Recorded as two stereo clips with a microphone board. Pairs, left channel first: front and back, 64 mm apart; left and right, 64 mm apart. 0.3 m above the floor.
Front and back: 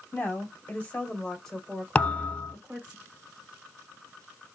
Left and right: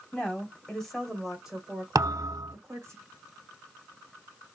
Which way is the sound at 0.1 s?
35° left.